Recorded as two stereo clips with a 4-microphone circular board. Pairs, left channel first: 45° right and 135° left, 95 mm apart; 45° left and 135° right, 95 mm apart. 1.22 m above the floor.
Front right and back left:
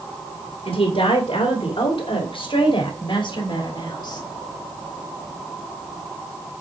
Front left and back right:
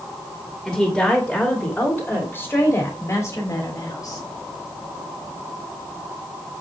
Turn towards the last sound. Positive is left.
turn(degrees=0)